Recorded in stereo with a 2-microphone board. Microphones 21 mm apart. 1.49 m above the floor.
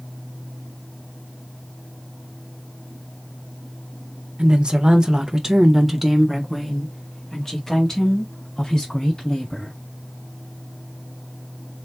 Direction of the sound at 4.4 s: 55° right (ahead or behind).